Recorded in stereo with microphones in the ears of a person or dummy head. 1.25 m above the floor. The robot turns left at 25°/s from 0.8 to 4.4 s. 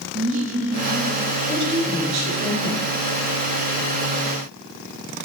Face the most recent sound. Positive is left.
turn(degrees=-105)